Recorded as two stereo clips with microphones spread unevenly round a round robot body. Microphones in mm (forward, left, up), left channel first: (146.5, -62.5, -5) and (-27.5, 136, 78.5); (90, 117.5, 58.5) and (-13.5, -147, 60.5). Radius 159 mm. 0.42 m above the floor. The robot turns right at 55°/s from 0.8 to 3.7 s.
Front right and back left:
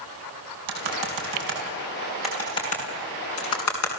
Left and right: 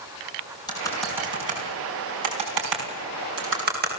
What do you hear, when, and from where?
0.7 s typing on a keyboard: 145° left, 5 m; by 4.0 s 55° right, 5 m